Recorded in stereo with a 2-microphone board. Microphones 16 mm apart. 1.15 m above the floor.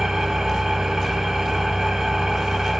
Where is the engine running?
40° right (ahead or behind), 1.0 m.